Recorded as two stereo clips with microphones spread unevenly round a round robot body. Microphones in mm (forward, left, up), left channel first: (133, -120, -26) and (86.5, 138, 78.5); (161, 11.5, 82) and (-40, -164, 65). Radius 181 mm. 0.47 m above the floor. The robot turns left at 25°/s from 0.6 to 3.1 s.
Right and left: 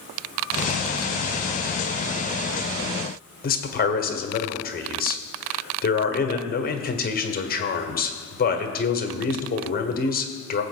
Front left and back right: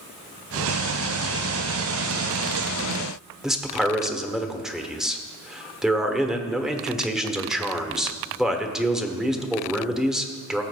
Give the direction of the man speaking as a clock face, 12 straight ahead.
2 o'clock.